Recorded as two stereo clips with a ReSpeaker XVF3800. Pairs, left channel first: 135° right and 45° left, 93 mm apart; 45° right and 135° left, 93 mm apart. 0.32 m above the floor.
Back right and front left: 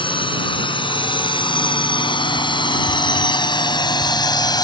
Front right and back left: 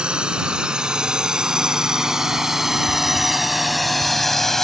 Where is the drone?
145° right; by 4.7 s 130° right.